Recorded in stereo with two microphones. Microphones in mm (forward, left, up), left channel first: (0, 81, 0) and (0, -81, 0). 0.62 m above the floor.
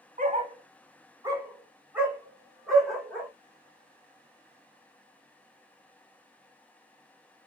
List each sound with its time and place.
0.2 s a dog barking: 50° right (ahead or behind), 0.8 m; by 3.3 s 5° left (ahead or behind), 1.8 m